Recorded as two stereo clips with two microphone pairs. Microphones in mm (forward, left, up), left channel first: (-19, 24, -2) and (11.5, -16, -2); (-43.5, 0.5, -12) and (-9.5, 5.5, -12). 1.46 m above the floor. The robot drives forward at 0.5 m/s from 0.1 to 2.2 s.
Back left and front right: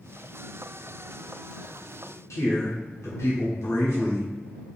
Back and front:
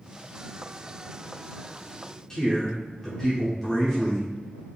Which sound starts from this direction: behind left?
A man speaking, at 2.3 s.